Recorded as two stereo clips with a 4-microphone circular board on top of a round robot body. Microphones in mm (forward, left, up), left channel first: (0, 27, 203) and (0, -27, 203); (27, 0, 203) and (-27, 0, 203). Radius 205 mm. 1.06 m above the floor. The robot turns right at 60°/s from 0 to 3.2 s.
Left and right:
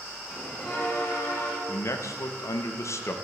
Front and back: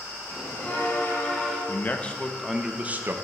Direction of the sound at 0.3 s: 10° left.